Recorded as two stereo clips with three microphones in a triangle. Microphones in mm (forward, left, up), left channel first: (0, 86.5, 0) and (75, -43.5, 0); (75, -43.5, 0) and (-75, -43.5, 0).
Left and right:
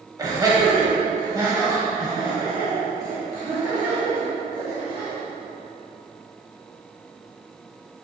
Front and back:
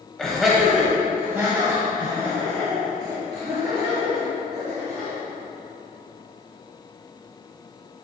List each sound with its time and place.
0.2 s laughter: 80° right, 1.2 m; by 5.2 s 125° right, 3.5 m